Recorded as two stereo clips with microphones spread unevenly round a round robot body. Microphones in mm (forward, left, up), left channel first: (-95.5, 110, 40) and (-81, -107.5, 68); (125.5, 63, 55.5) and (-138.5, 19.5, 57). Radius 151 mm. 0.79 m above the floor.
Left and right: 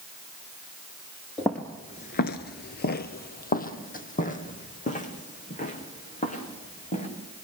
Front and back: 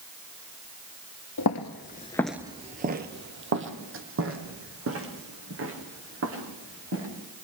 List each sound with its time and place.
1.4 s footsteps: 5° right, 1.2 m; by 7.1 s 155° left, 6.5 m